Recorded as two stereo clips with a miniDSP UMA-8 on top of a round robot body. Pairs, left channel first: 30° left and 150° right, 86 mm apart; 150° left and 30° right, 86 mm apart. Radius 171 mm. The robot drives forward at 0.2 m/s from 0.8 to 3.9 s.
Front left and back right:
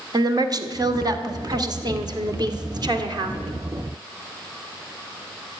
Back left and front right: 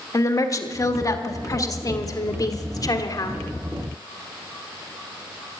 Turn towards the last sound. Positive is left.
turn(degrees=-175)